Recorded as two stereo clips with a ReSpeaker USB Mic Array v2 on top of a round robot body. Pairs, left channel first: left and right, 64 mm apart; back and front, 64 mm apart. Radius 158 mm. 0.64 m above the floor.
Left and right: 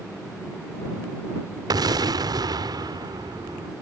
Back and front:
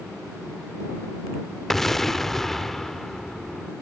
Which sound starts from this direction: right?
An explosion, at 1.7 s.